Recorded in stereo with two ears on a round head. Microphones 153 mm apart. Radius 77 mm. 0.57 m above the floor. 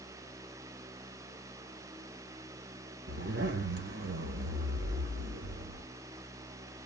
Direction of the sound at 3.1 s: 60° right (ahead or behind).